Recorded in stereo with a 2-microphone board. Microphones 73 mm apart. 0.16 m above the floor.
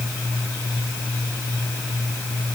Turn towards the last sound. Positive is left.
No sound to turn to.